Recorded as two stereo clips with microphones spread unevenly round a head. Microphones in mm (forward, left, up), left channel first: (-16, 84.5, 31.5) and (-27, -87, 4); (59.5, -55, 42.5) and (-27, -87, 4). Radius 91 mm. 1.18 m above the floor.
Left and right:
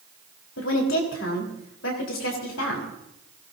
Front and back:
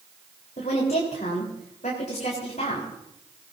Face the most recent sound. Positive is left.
turn(degrees=65)